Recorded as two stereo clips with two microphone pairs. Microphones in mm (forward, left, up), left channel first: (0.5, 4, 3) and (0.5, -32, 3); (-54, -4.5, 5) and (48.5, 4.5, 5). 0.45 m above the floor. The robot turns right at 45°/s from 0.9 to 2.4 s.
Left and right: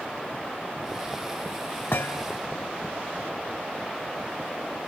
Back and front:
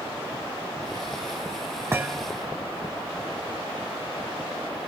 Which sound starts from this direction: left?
A thud, at 1.9 s.